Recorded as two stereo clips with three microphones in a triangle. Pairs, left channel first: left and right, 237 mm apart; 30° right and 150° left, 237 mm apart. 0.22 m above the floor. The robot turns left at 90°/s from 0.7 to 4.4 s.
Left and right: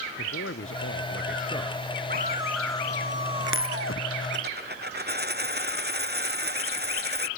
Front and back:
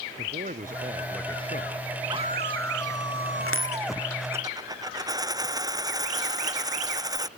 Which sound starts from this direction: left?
A man speaking, at 0.2 s.